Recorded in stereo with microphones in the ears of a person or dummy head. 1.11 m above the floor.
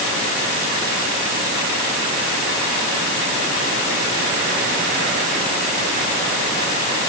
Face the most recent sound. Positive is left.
No sound to turn to.